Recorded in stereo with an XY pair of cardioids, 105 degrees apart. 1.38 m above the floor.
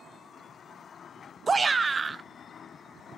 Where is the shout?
25° right, 0.6 m.